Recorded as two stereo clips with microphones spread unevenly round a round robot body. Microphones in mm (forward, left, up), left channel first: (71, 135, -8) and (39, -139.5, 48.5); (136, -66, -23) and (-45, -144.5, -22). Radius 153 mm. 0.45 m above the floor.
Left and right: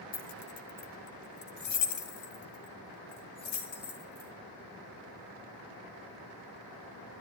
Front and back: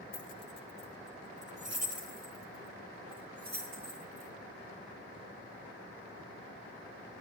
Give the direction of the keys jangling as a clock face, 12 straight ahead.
10 o'clock.